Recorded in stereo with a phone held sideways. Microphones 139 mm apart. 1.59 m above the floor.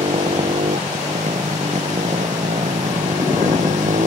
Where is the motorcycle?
55° right (ahead or behind); by 4.1 s 60° right (ahead or behind).